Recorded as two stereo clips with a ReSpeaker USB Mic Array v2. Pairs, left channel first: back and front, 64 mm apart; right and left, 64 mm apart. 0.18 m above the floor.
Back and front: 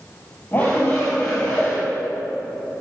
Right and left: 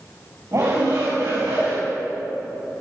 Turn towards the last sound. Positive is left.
turn(degrees=120)